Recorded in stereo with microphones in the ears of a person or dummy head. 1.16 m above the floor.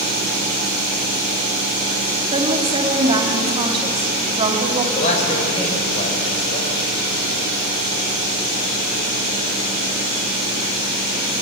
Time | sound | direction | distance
2.3 | a woman speaking | 25° right (ahead or behind) | 2.5 m
5.0 | a man speaking | 40° left (ahead or behind) | 5.5 m